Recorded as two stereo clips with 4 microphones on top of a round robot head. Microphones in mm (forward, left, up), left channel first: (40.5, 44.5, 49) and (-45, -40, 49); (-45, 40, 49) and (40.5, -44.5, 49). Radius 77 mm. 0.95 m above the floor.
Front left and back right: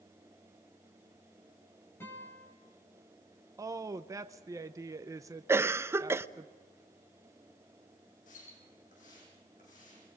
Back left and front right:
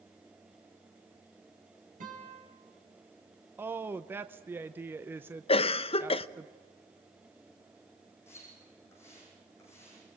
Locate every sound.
2.0 s a guitar: 30° right, 5.5 m
3.6 s a woman speaking: 100° right, 0.7 m
5.5 s a cough: 160° left, 0.8 m
8.3 s a splash: 65° left, 7.5 m